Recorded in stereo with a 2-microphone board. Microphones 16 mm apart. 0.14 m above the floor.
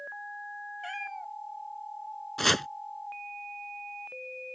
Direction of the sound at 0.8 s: Centre (ahead or behind).